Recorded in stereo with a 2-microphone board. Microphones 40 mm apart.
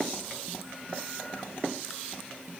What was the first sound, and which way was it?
Only background noise.